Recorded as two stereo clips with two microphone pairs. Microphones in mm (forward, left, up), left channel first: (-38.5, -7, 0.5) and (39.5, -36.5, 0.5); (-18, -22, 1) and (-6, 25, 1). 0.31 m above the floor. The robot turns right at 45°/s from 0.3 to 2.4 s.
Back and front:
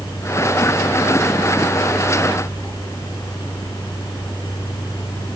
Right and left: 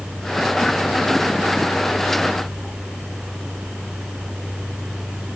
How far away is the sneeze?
No sneeze in this recording.